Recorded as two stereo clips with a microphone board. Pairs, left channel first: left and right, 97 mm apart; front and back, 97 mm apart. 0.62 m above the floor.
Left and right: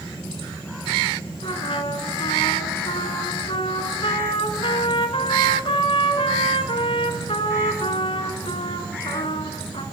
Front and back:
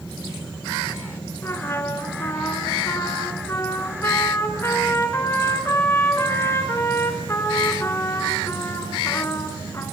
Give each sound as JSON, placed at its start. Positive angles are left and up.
{"t": 1.4, "sound": "a trumpet", "azimuth_deg": 65, "distance_m": 2.5}